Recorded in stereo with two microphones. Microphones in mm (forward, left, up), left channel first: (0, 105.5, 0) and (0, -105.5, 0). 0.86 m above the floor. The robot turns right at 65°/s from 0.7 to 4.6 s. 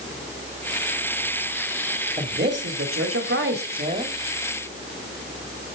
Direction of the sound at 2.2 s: 145° right.